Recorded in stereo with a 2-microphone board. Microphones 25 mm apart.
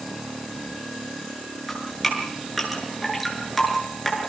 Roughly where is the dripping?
Centre.